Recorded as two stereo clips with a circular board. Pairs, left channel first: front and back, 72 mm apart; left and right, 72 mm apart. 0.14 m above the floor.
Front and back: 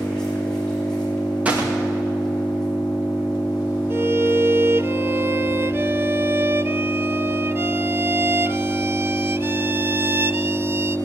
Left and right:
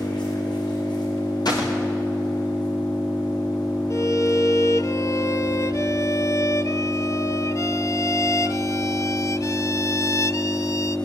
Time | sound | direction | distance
0.0 | an engine running | 80° left | 10 m
1.4 | a gunshot | 110° left | 6 m
3.9 | a violin | 125° left | 0.7 m